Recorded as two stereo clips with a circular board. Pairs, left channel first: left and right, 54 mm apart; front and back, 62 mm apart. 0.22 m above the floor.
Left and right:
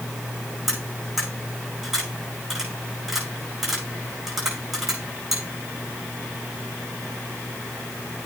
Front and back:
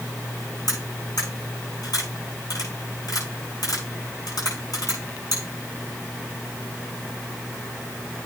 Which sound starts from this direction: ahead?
Cutlery clinking, at 0.7 s.